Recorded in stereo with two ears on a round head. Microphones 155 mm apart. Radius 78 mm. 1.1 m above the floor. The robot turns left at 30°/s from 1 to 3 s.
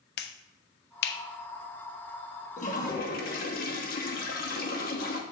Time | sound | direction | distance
0.2 | a finger snap | 65° left (ahead or behind) | 0.6 m
2.6 | a toilet flushing | 45° left (ahead or behind) | 1.0 m